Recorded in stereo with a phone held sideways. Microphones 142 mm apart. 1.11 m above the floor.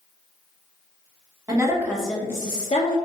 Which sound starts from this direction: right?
A woman speaking, at 1.5 s.